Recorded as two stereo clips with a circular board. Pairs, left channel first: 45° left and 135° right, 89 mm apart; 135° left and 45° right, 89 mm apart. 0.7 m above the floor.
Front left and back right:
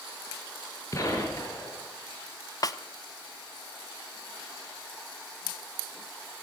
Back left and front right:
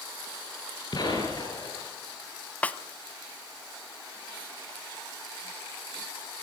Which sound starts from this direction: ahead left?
A snare drum, at 2.6 s.